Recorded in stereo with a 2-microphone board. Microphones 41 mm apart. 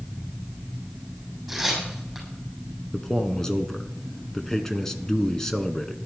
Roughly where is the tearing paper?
Centre.